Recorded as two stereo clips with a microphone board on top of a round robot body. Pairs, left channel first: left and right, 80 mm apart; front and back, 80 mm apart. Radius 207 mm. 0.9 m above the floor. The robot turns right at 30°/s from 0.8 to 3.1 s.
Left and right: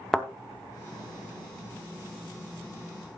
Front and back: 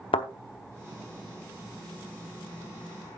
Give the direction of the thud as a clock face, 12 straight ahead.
12 o'clock.